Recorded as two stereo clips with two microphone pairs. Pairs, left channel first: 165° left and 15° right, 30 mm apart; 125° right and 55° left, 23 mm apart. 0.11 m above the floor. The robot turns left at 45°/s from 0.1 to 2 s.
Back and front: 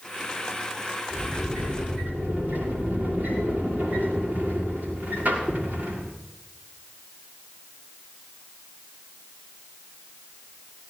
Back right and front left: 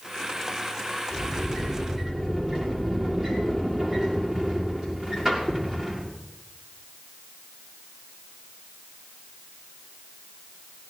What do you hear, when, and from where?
1.1 s a sliding door: 35° left, 6 m; by 6.1 s 5° right, 6 m